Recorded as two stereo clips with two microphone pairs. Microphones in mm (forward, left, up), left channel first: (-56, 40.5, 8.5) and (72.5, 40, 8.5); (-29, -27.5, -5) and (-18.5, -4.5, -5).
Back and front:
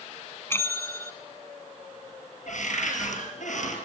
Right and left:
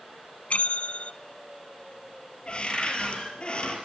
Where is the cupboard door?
165° right, 5.5 m.